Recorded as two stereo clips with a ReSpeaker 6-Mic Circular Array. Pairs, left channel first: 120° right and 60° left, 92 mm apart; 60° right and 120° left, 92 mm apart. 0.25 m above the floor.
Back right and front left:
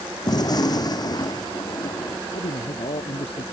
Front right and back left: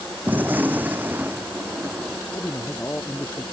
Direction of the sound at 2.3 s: 130° right.